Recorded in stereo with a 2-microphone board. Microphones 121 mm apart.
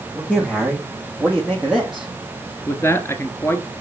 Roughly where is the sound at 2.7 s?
Left.